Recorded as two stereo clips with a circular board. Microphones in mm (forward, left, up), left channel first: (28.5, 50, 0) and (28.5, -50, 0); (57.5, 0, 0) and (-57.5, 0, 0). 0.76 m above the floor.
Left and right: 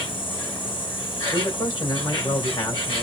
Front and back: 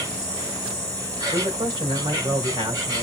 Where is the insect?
120° left, 5 m.